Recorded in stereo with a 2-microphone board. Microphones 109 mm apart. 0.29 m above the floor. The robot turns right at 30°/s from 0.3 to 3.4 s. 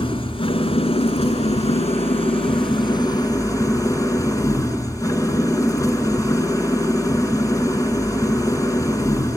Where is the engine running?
55° left, 4 m; by 9.4 s 145° left, 4 m.